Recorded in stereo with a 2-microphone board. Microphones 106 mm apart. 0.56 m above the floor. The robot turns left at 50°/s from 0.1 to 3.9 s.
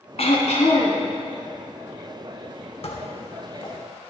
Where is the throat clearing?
110° left, 1.5 m; by 1.0 s 70° left, 1.5 m.